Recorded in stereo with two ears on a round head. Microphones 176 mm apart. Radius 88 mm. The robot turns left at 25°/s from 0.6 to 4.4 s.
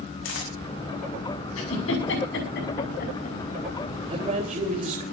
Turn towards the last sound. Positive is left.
turn(degrees=-40)  # may be behind; listen again after turning